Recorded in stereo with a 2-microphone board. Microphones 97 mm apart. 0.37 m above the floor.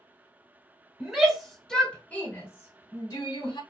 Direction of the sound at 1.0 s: 10° right (ahead or behind).